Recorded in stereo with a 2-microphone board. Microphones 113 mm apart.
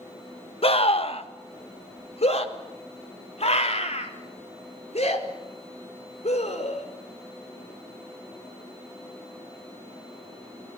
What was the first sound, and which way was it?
A scream, 60° left (ahead or behind).